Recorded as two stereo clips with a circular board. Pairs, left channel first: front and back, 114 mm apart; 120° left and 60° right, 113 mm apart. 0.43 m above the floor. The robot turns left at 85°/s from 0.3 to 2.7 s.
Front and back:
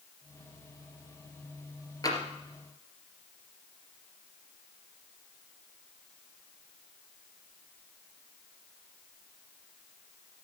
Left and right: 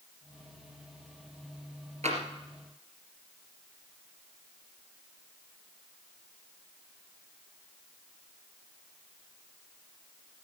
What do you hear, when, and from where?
2.0 s tapping: 55° right, 3 m; by 2.2 s 70° right, 3 m